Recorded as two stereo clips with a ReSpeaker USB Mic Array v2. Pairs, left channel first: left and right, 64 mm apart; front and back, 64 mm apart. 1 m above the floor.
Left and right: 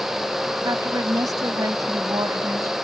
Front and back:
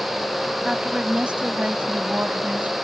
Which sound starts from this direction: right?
A woman speaking, at 0.7 s.